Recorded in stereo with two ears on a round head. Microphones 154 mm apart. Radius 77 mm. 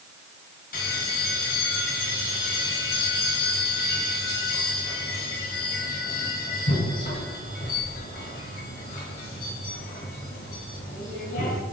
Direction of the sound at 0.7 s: 60° left (ahead or behind).